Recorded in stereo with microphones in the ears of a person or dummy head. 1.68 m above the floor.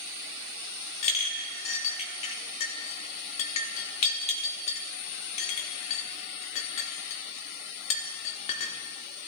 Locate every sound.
1.0 s a clink: 35° left (ahead or behind), 1.2 m